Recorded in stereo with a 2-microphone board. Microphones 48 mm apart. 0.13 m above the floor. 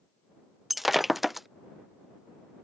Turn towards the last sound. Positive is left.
turn(degrees=0)  # may be behind; listen again after turning